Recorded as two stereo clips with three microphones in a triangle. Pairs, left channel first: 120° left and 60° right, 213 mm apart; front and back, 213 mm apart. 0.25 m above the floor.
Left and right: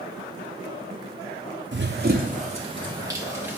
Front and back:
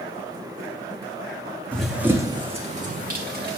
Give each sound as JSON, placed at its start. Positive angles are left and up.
{"t": 1.7, "sound": "running footsteps", "azimuth_deg": -85, "distance_m": 0.8}